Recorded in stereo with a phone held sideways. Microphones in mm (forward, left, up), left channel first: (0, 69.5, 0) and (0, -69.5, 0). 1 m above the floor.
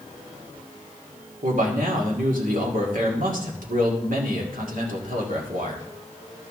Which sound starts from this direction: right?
A man speaking, at 1.4 s.